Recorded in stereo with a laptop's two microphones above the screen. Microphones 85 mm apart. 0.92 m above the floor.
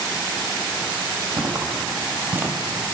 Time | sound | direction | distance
1.4 | footsteps | 50° right (ahead or behind) | 1.4 m